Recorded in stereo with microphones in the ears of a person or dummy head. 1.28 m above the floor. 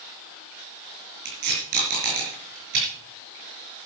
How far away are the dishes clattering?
I don't hear dishes clattering.